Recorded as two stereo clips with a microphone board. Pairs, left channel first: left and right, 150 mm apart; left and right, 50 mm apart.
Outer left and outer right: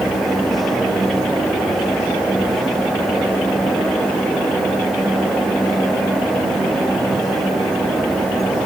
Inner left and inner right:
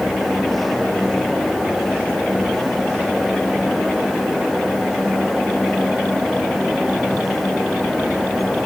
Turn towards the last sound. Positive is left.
No sound to turn to.